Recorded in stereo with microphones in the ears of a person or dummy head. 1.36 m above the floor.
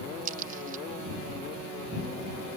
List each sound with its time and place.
0.2 s a crack: 50° right (ahead or behind)